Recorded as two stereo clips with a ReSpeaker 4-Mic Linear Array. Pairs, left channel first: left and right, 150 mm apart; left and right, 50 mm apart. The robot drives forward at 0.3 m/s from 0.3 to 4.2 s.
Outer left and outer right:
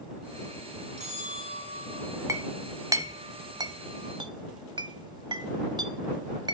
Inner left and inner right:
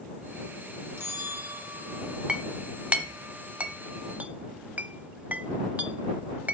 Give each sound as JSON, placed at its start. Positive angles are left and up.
{"t": 1.0, "sound": "a bell", "side_deg": -50, "distance_m": 2.5}
{"t": 2.3, "sound": "a clink", "side_deg": -20, "distance_m": 1.1}